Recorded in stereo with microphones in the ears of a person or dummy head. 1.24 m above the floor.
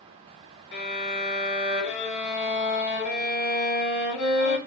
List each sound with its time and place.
0.7 s a violin: 70° left (ahead or behind), 1.5 m